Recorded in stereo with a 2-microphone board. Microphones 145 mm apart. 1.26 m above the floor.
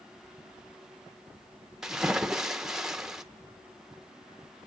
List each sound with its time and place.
1.8 s a splash: 5° right (ahead or behind), 1.0 m